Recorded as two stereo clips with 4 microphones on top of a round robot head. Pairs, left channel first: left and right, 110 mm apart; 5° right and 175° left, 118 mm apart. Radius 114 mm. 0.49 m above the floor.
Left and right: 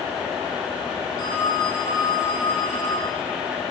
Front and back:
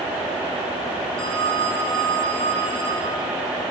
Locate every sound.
1.2 s a phone ringing: 35° left, 5.5 m